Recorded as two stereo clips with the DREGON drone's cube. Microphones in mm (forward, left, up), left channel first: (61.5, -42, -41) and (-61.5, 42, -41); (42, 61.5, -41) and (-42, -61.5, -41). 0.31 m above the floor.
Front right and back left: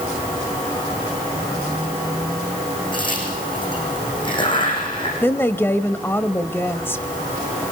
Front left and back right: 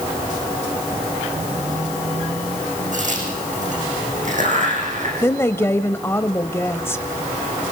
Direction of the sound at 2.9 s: 90° right.